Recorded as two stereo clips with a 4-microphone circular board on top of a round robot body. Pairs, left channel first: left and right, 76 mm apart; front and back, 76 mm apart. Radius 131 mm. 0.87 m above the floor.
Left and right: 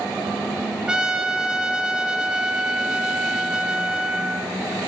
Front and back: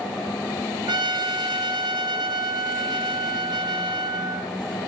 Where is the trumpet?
170° right, 1.8 m.